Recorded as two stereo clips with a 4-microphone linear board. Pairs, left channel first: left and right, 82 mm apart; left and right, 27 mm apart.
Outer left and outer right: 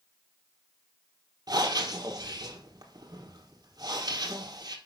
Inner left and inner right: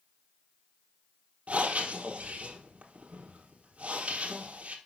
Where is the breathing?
55° right (ahead or behind), 1.4 m.